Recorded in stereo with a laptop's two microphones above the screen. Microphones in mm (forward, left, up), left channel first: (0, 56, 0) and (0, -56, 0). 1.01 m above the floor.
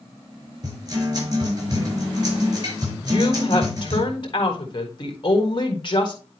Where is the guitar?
40° right (ahead or behind), 5.5 m.